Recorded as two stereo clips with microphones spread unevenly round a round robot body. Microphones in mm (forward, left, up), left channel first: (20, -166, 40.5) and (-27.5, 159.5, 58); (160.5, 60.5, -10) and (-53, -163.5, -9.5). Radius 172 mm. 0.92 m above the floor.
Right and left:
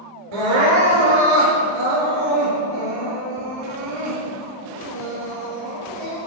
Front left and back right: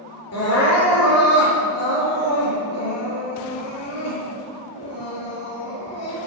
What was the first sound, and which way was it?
Crying, 100° left.